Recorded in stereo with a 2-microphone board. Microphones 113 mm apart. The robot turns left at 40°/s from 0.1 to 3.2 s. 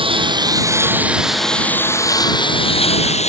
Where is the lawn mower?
130° right; by 3.3 s 105° left.